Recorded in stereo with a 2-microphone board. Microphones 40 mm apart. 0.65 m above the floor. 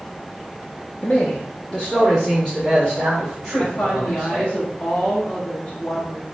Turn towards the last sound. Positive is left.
turn(degrees=30)  # may be behind; listen again after turning